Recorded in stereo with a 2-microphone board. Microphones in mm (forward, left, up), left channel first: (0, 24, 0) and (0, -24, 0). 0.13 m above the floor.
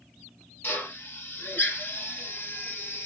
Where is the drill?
40° left (ahead or behind), 3 m.